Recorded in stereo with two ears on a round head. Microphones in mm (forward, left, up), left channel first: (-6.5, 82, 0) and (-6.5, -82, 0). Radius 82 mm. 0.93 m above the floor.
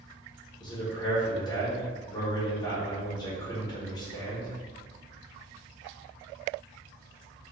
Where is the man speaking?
25° left (ahead or behind), 1.1 m.